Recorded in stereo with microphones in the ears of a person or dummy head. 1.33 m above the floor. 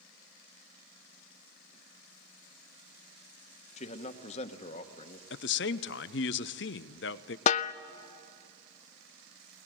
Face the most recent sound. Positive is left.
turn(degrees=45)  # may be behind; listen again after turning